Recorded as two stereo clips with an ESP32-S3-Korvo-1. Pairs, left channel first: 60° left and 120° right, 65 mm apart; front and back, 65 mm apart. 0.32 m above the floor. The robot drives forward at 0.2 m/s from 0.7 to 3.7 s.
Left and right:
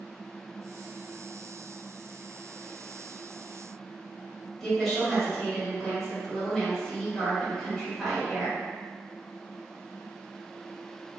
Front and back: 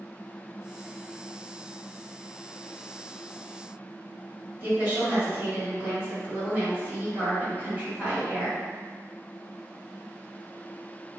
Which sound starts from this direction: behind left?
A woman speaking, at 4.6 s.